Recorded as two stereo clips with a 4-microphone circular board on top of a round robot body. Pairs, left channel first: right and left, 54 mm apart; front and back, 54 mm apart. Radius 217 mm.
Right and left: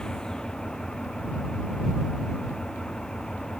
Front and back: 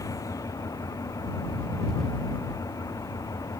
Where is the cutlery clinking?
No cutlery clinking in this recording.